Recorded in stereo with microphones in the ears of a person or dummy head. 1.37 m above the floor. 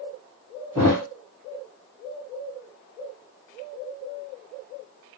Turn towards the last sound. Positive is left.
turn(degrees=-5)  # may be behind; listen again after turning